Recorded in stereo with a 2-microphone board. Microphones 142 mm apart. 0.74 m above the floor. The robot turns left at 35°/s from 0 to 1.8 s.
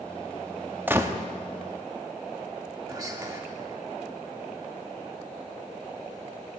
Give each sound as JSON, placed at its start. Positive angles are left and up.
{"t": 0.9, "sound": "a gunshot", "side_deg": -15, "distance_m": 0.6}
{"t": 2.9, "sound": "whispering", "side_deg": -25, "distance_m": 1.4}